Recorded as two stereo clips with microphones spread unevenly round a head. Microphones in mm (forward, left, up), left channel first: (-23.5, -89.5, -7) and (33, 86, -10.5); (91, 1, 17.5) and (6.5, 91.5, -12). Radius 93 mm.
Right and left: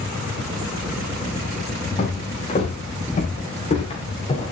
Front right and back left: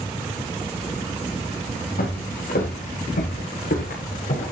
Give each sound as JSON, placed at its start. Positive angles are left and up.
{"t": 2.0, "sound": "footsteps", "azimuth_deg": -55, "distance_m": 7.5}